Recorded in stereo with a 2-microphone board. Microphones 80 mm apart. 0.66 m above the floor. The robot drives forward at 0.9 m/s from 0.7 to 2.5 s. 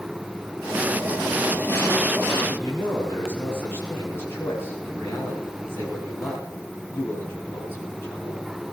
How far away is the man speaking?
About 7.5 m.